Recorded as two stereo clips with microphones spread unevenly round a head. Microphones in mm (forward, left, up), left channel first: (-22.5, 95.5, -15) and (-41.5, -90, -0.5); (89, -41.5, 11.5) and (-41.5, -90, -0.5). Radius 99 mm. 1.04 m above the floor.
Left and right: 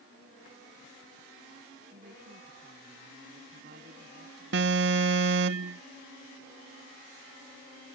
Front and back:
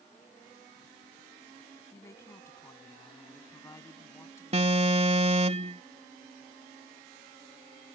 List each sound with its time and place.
1.9 s a woman speaking: 50° right
4.5 s an alarm: 120° right